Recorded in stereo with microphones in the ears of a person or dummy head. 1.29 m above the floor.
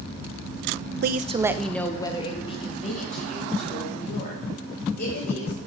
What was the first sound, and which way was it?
A woman speaking, 55° right (ahead or behind).